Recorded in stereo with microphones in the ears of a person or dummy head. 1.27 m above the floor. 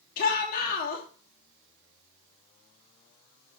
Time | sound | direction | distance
0.2 | a shout | 55° left (ahead or behind) | 2.5 m